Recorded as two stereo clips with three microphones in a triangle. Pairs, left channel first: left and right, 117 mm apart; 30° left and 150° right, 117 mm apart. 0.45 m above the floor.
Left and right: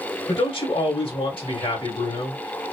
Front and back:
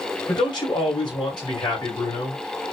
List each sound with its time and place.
0.3 s a man speaking: 70° left, 2.5 m